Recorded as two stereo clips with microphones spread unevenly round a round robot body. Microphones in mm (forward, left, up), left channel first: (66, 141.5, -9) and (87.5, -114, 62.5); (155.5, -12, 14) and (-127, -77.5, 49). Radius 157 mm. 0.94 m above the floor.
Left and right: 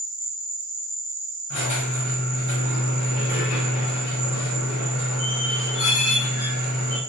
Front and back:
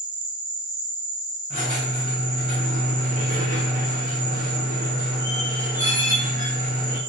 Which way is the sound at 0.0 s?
160° right.